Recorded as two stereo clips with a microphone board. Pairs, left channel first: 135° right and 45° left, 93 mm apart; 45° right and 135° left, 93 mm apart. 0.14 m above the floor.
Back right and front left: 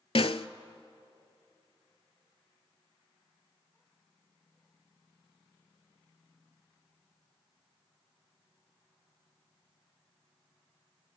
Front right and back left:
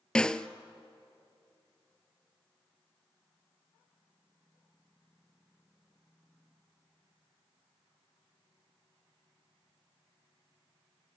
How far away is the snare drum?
About 0.5 m.